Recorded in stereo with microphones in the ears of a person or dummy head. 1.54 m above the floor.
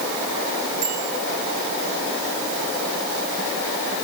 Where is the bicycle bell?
40° right (ahead or behind), 8 m.